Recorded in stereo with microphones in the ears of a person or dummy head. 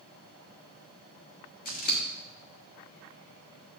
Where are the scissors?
40° left (ahead or behind), 1.3 m.